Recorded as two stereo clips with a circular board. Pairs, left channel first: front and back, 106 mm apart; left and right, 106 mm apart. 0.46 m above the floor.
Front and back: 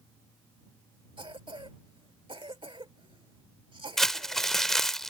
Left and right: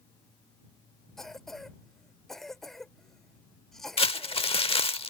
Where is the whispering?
No whispering in this recording.